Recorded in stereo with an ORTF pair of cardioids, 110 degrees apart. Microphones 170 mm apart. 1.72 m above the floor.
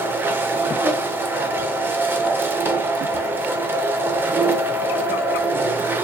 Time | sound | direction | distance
0.0 | a machine running | 15° right | 0.8 m